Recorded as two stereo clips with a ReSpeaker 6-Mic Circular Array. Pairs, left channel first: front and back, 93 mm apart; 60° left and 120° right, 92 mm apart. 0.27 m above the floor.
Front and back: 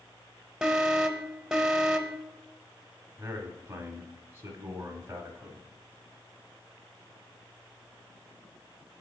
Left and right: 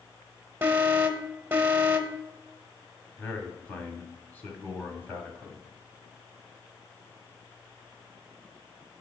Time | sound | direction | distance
0.6 | an alarm | 105° right | 0.8 m
3.2 | a man speaking | 125° left | 1.4 m